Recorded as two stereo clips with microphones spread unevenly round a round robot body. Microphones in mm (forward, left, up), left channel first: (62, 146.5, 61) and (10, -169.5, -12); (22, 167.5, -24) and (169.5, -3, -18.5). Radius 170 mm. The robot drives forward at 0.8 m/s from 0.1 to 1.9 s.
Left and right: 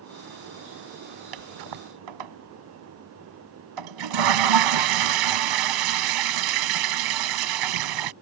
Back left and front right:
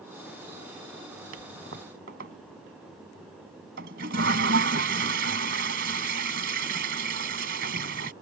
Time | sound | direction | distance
1.3 | a toilet flushing | 105° right | ?